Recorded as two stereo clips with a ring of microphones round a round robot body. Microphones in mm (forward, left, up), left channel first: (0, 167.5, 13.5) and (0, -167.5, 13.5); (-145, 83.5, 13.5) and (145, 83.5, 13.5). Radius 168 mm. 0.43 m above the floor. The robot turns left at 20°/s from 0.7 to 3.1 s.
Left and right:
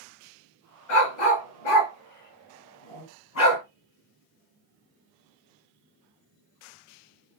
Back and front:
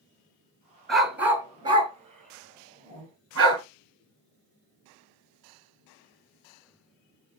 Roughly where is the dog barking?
Left.